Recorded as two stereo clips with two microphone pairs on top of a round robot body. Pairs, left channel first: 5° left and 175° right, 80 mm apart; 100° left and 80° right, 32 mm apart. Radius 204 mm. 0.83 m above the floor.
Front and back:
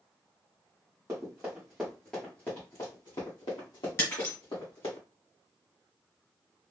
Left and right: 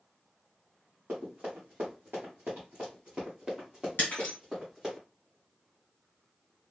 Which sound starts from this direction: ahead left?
Breaking glass, at 4.0 s.